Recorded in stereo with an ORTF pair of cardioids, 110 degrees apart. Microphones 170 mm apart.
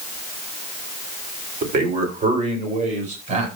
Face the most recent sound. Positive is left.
turn(degrees=-45)